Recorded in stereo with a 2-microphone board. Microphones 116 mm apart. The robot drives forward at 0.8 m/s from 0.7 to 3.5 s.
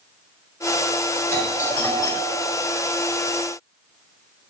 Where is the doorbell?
30° left (ahead or behind), 4.5 m; by 2.5 s 40° left (ahead or behind), 3.5 m.